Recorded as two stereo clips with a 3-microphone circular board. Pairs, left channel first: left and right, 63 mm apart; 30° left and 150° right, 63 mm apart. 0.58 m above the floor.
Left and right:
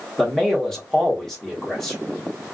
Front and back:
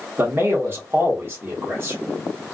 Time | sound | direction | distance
0.2 | a man speaking | 170° left | 1.2 m